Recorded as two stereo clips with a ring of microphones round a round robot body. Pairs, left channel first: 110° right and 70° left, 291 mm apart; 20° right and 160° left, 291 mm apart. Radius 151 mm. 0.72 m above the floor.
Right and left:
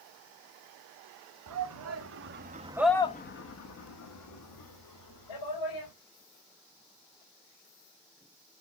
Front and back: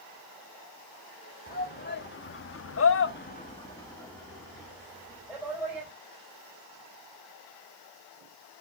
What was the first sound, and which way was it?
A shout, 35° left.